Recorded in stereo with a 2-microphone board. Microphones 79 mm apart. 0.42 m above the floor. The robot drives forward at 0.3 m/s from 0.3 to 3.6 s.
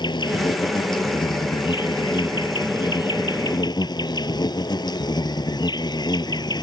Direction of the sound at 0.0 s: 75° left (ahead or behind).